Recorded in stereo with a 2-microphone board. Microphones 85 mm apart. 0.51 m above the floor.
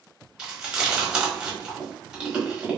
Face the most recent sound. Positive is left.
turn(degrees=-10)  # may be behind; listen again after turning